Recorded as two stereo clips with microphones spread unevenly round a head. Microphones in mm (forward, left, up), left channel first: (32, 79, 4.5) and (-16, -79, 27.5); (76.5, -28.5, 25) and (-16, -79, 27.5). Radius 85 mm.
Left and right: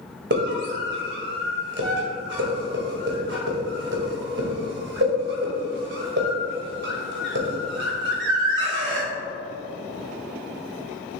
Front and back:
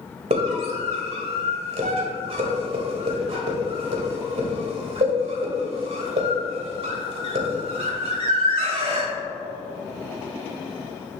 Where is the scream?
130° right, 2 m.